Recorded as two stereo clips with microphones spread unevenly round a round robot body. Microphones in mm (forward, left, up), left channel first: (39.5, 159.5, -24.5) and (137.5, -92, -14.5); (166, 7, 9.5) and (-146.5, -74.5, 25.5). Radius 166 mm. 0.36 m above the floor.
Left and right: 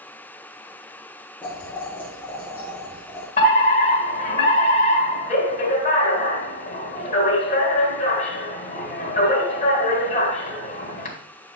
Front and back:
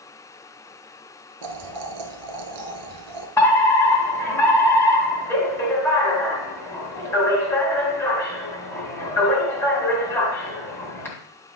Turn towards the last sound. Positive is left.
turn(degrees=85)